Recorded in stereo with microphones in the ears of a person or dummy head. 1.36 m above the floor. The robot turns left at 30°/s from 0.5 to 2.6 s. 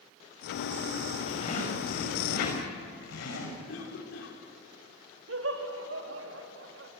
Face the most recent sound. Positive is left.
turn(degrees=-60)  # may be behind; listen again after turning